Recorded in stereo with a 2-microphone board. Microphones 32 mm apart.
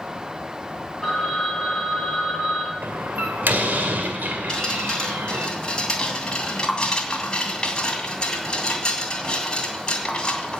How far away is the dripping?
About 2 m.